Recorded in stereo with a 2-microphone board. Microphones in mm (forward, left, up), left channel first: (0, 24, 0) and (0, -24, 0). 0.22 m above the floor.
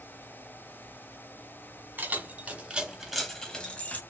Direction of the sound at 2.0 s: 40° right (ahead or behind).